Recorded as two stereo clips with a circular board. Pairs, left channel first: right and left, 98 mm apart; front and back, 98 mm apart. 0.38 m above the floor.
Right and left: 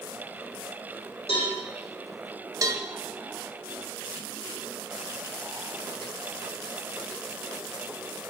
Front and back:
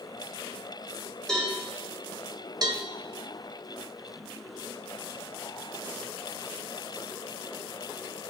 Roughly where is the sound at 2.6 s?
Behind left.